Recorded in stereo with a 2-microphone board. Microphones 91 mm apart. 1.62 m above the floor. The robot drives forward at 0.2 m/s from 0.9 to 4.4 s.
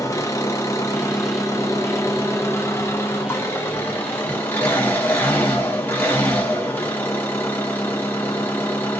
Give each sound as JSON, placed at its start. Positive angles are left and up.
{"t": 0.0, "sound": "an engine running", "side_deg": 35, "distance_m": 0.8}